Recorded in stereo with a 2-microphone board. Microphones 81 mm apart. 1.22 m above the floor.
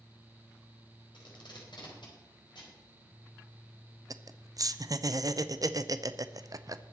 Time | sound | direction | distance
1.1 | tape being pulled | 80° left | 4 m
4.1 | laughter | 50° right (ahead or behind) | 0.6 m